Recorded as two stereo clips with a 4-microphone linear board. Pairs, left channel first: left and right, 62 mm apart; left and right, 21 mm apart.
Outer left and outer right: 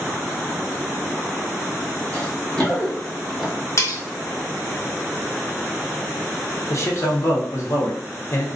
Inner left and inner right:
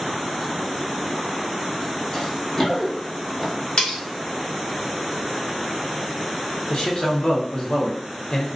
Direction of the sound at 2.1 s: 20° left (ahead or behind).